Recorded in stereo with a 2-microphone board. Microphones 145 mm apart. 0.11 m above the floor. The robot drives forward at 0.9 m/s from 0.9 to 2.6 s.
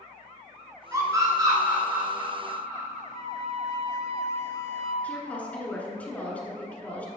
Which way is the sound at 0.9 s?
25° right (ahead or behind).